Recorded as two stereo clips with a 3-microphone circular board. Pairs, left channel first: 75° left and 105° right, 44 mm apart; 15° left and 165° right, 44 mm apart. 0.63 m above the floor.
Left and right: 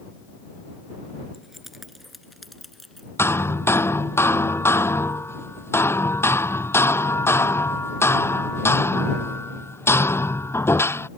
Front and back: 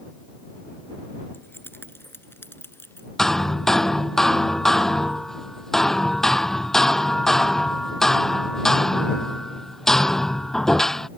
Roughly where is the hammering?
Left.